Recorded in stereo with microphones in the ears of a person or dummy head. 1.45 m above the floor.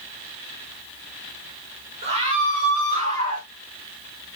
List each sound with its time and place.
2.0 s a scream: 35° right (ahead or behind), 2 m; by 3.5 s 50° right (ahead or behind), 3 m